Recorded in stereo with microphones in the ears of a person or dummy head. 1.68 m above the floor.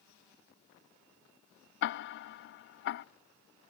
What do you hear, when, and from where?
1.8 s ticking: 60° left (ahead or behind), 0.5 m